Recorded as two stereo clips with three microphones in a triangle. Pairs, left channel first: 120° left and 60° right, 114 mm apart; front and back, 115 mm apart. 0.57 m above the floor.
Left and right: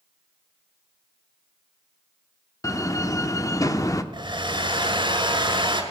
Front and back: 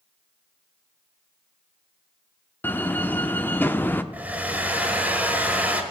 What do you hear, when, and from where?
2.6 s a door slam: 70° left, 0.6 m
4.1 s a hair dryer: 105° right, 1.5 m